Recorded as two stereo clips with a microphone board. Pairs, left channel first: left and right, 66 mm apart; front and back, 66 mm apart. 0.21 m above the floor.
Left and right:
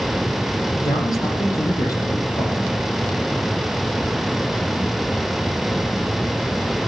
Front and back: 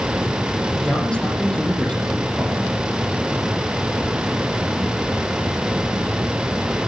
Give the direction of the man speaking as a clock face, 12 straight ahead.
9 o'clock.